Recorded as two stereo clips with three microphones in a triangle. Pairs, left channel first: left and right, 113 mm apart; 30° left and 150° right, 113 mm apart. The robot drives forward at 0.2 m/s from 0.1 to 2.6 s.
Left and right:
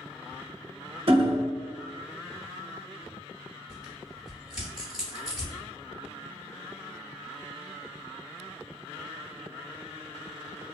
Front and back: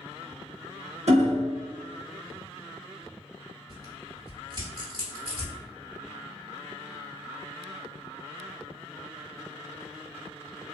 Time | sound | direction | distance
1.1 | hammering | 125° right | 0.5 m
3.7 | tearing paper | 170° right | 1.5 m